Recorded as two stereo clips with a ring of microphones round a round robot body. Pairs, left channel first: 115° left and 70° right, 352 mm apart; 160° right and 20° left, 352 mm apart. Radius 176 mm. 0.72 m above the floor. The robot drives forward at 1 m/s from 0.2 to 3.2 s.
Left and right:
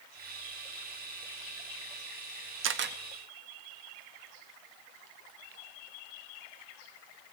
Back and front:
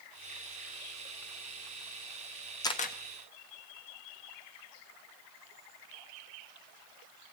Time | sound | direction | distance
2.6 | a camera shutter | 85° right | 0.9 m